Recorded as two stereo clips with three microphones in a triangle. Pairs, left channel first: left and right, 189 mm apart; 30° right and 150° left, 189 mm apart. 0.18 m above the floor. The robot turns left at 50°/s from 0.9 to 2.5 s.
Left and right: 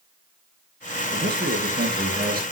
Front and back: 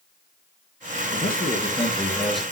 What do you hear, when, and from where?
1.1 s a man speaking: 55° right, 2.5 m; by 2.4 s 120° right, 2.5 m